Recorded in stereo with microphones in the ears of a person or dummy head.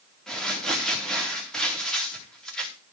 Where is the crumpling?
5° left (ahead or behind), 3.5 m.